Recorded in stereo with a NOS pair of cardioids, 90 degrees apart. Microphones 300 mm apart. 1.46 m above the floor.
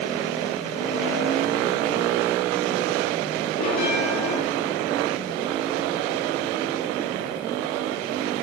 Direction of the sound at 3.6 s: 65° left.